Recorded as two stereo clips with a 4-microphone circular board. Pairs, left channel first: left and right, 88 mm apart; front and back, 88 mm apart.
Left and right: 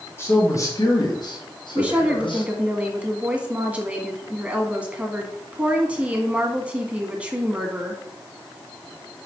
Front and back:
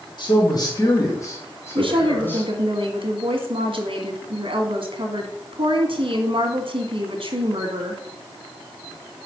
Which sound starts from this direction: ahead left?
A man speaking, at 0.2 s.